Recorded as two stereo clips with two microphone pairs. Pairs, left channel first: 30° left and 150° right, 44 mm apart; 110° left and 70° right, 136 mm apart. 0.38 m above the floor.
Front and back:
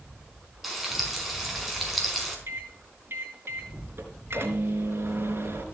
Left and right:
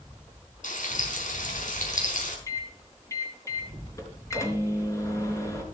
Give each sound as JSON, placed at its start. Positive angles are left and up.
{"t": 0.6, "sound": "frying", "azimuth_deg": 120, "distance_m": 4.5}
{"t": 2.5, "sound": "a microwave", "azimuth_deg": 175, "distance_m": 3.5}